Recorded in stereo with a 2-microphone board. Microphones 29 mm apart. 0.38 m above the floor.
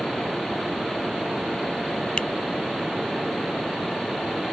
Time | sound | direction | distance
2.2 | a finger snap | 40° left (ahead or behind) | ?